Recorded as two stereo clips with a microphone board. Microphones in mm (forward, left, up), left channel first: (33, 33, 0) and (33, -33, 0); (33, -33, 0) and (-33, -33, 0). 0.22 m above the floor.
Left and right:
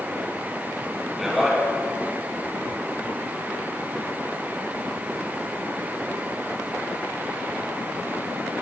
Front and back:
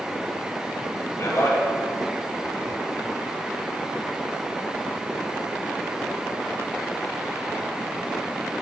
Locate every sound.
1.2 s a man speaking: 5° right, 2.5 m